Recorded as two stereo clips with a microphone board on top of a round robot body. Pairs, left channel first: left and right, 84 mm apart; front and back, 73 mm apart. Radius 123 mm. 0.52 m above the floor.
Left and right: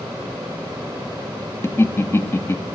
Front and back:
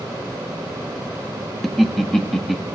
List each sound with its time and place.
1.6 s laughter: 90° left, 0.7 m